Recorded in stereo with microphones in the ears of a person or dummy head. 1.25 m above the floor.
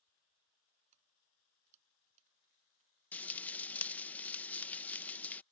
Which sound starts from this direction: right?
Keys jangling, at 0.9 s.